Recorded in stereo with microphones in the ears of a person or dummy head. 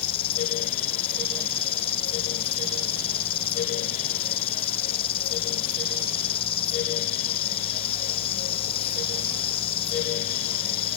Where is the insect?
35° left (ahead or behind).